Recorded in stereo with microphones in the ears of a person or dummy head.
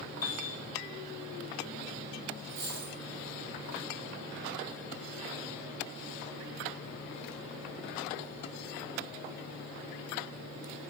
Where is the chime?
60° left (ahead or behind), 1.6 m.